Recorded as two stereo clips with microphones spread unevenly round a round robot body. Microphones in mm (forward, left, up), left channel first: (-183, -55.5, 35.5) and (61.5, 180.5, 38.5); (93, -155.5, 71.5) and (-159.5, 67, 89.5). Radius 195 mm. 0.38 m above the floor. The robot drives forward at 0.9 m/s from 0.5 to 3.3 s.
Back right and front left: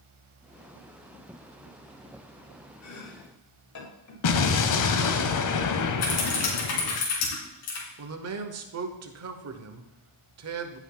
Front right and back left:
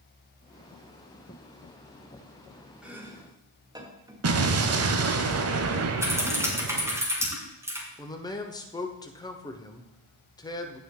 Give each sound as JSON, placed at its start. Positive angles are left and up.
{"t": 2.8, "sound": "chopping", "azimuth_deg": -135, "distance_m": 1.9}
{"t": 4.2, "sound": "an explosion", "azimuth_deg": -175, "distance_m": 1.0}
{"t": 6.0, "sound": "typing on a keyboard", "azimuth_deg": -140, "distance_m": 3.0}
{"t": 8.0, "sound": "a man speaking", "azimuth_deg": 30, "distance_m": 1.1}